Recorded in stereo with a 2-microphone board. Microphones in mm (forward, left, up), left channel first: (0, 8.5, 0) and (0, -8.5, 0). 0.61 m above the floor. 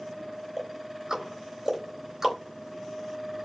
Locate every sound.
0.6 s ticking: 30° right (ahead or behind), 2.5 m